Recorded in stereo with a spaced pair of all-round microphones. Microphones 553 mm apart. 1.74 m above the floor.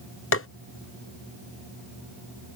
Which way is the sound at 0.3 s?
25° left (ahead or behind).